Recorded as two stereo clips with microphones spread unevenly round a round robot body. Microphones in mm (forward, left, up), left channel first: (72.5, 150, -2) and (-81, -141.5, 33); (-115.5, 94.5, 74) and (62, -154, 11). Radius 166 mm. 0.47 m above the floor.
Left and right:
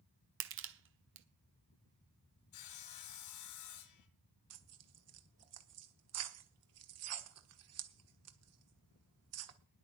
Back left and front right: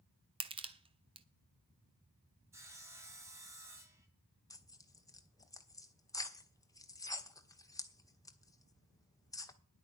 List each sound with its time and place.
0.4 s crushing: 90° right, 1.1 m
2.5 s sawing: 25° left, 1.5 m
4.5 s tearing paper: 145° right, 1.3 m